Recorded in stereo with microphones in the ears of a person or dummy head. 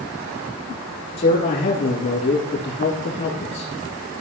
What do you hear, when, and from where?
1.2 s a man speaking: 45° left (ahead or behind), 3.5 m